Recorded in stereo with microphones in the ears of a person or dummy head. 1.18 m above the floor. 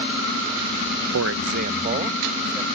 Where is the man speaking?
80° right; by 2.7 s 20° right (ahead or behind).